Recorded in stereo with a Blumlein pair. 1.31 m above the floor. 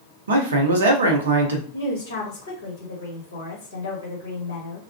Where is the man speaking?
65° right, 0.9 m.